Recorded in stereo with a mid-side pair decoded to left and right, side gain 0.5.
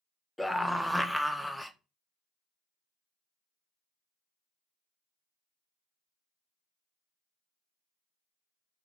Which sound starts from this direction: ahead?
A scream, at 0.4 s.